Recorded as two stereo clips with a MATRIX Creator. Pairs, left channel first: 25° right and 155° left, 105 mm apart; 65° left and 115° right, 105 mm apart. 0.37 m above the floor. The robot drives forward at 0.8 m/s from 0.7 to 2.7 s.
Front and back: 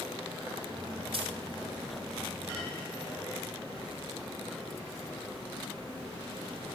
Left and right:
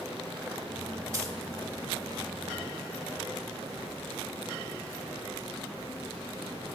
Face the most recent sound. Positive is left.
turn(degrees=-175)